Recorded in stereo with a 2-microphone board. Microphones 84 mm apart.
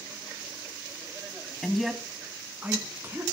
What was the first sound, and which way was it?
A man speaking, 5° left (ahead or behind).